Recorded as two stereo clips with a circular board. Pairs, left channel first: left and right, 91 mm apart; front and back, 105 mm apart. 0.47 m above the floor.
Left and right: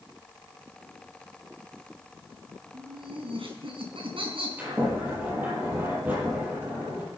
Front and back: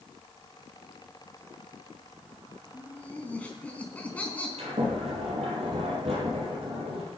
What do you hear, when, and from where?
2.7 s laughter: 75° right, 4.5 m
4.6 s a sliding door: 160° right, 8.5 m